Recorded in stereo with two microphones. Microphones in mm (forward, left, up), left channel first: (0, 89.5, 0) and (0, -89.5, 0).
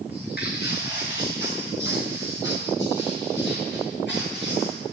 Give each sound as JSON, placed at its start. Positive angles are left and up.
{"t": 0.1, "sound": "footsteps", "side_deg": 65, "distance_m": 3.5}